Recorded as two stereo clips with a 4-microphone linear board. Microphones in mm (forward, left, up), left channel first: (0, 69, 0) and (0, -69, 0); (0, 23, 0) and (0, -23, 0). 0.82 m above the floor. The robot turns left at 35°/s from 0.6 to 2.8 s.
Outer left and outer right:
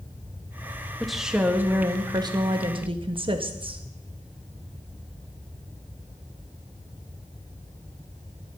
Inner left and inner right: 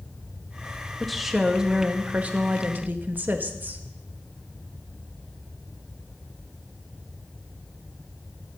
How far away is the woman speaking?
About 0.8 m.